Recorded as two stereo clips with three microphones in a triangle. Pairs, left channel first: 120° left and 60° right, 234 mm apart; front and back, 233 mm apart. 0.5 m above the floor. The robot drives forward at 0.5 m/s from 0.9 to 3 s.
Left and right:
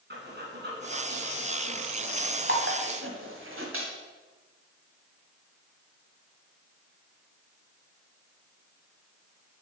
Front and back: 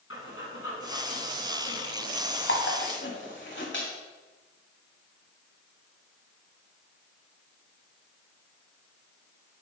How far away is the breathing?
About 2 m.